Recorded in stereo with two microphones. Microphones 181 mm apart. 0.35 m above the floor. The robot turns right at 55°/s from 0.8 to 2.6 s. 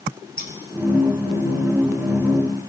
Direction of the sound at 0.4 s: 55° left (ahead or behind).